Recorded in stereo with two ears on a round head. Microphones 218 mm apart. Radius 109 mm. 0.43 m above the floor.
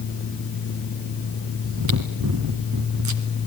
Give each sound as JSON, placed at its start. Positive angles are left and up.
{"t": 1.6, "sound": "chewing", "side_deg": -80, "distance_m": 2.0}